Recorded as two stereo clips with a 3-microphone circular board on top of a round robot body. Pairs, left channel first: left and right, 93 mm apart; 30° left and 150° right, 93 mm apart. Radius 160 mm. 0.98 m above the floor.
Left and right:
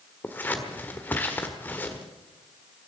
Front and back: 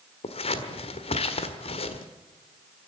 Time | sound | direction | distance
0.2 | scissors | 15° left | 1.5 m